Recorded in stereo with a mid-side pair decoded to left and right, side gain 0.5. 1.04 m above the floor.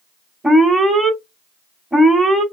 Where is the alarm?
5° right, 1.6 m.